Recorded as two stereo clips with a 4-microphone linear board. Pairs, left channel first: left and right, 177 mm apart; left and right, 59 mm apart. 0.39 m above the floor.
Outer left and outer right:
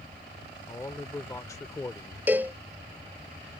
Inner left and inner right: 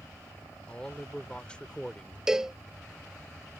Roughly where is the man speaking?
Centre.